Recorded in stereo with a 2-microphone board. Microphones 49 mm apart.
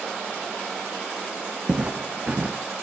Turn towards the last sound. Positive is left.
turn(degrees=-25)  # may be behind; listen again after turning